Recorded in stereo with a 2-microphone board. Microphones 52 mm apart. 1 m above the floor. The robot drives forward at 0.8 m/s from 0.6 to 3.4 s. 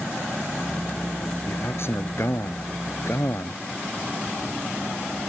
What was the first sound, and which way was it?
A man speaking, 50° left (ahead or behind).